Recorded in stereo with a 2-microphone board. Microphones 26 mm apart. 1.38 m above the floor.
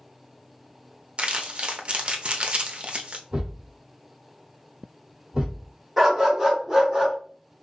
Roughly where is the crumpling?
Right.